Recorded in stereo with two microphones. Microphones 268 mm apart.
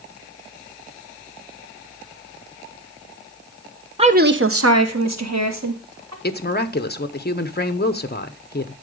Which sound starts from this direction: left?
A woman speaking, at 6.2 s.